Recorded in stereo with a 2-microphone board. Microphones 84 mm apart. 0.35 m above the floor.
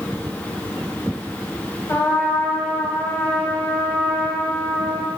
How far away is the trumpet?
About 0.8 m.